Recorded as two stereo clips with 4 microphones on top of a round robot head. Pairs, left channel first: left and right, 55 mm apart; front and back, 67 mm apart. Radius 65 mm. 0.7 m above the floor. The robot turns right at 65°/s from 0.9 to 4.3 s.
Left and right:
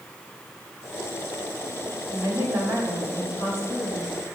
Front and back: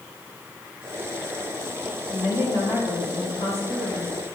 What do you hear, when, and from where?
2.1 s a woman speaking: 50° right, 4 m; by 4.3 s 95° left, 4 m